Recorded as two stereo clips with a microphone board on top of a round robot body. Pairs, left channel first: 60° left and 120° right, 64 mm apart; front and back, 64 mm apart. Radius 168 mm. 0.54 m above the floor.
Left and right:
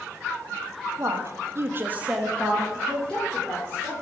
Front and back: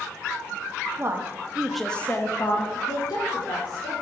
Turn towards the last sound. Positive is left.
turn(degrees=-10)